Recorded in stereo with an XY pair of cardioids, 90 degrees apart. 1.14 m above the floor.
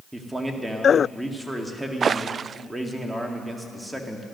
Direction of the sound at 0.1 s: 10° right.